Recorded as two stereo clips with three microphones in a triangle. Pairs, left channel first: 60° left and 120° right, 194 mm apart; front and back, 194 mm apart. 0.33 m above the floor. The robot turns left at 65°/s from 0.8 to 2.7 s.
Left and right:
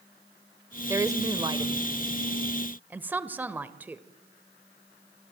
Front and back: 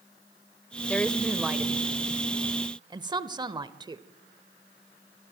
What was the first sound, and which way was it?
A woman speaking, 65° right.